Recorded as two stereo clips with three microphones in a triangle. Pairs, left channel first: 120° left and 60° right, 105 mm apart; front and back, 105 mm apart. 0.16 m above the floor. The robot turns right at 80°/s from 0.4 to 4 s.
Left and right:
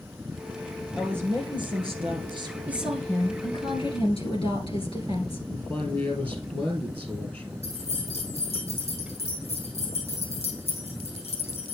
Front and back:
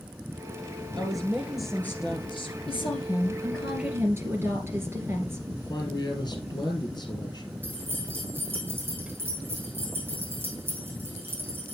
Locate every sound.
1.0 s a woman speaking: 145° right, 2.5 m; by 2.6 s 15° right, 2.5 m
2.7 s a woman speaking: 10° left, 2 m; by 5.4 s 115° left, 2 m
5.5 s a man speaking: 50° left, 3 m
7.6 s keys jangling: 110° left, 4.5 m